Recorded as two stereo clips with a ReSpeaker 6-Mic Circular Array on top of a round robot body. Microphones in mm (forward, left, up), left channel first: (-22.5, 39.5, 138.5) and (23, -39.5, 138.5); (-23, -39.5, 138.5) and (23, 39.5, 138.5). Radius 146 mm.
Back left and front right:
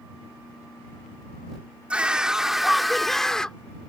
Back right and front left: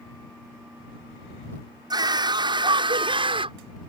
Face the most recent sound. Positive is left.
turn(degrees=40)